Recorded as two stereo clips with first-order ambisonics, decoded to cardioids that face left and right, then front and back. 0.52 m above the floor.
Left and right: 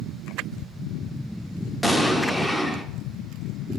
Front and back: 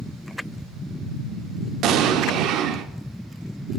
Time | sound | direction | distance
1.8 | an explosion | 175° left | 0.8 m